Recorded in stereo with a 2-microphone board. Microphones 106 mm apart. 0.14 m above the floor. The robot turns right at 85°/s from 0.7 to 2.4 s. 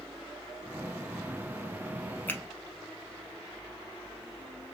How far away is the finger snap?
About 0.9 m.